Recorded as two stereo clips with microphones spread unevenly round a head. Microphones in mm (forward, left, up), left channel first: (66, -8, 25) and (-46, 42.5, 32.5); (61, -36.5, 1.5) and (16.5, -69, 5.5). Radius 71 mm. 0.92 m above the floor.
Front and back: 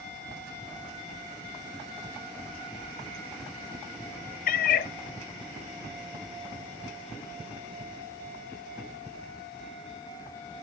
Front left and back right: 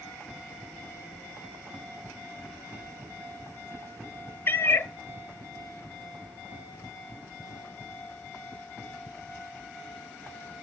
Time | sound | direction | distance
4.5 | a cat meowing | 15° right | 0.6 m